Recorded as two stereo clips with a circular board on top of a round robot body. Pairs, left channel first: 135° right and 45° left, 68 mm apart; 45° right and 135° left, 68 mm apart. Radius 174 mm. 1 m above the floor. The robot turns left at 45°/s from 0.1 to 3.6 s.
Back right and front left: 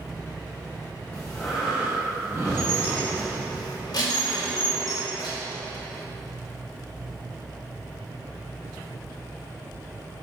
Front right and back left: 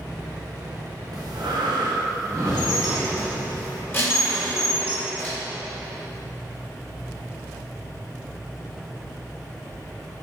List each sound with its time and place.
1.1 s breathing: 150° left, 2.5 m; by 3.4 s 45° left, 2.5 m
2.5 s dishes clattering: 50° right, 3 m; by 5.4 s 105° right, 3 m